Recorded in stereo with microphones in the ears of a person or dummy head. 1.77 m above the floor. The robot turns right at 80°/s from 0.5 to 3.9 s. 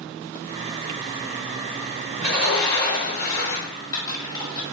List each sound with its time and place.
2.2 s a sliding door: 25° right, 1.3 m; by 3.7 s 100° left, 1.3 m
3.6 s typing on a keyboard: 5° left (ahead or behind), 1.0 m; by 4.6 s 25° left (ahead or behind), 1.0 m